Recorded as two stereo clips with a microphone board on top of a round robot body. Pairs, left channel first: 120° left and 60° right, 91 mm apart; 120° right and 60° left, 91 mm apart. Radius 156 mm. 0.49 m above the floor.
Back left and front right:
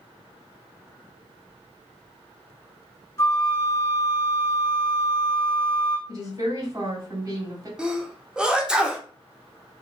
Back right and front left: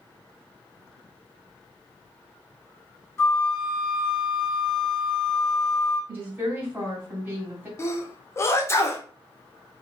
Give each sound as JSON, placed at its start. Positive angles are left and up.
{"t": 3.2, "sound": "a flute", "azimuth_deg": 180, "distance_m": 1.0}
{"t": 6.1, "sound": "a woman speaking", "azimuth_deg": -10, "distance_m": 2.0}
{"t": 7.8, "sound": "a sneeze", "azimuth_deg": -130, "distance_m": 0.9}